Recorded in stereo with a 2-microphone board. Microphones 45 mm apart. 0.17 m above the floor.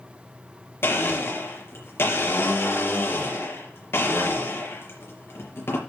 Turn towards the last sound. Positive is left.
turn(degrees=65)  # may be behind; listen again after turning